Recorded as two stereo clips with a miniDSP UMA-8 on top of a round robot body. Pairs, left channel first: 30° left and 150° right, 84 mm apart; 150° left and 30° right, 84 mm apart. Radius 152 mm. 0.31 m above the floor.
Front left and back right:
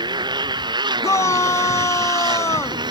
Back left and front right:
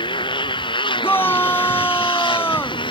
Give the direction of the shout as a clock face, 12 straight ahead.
9 o'clock.